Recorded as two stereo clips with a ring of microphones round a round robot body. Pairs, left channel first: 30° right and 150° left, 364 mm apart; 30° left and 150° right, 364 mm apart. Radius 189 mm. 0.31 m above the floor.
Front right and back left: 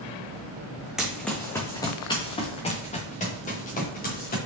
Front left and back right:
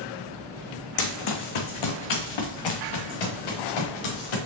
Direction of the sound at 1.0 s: 60° left.